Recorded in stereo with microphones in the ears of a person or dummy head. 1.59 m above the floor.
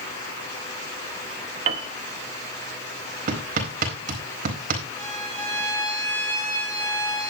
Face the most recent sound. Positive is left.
turn(degrees=15)  # may be behind; listen again after turning